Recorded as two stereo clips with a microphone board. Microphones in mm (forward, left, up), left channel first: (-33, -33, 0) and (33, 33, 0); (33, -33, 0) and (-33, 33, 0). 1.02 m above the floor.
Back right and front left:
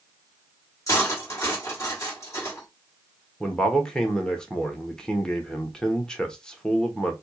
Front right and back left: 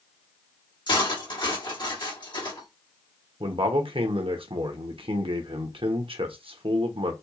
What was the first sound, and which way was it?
Cutlery clinking, 80° right.